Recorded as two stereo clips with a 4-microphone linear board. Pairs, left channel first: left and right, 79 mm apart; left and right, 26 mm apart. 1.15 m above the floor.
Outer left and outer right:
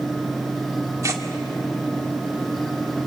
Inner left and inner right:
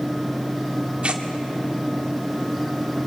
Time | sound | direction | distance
1.0 | tearing paper | 45° right (ahead or behind) | 1.8 m